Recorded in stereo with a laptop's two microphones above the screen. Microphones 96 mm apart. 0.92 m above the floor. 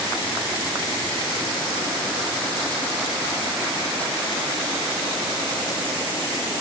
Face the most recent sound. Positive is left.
No sound to turn to.